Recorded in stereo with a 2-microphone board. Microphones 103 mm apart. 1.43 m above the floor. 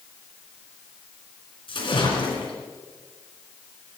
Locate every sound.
1.7 s a splash: 60° left (ahead or behind), 2.5 m